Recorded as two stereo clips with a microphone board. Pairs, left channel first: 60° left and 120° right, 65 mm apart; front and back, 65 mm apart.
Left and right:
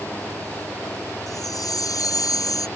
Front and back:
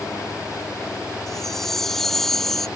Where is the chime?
85° left.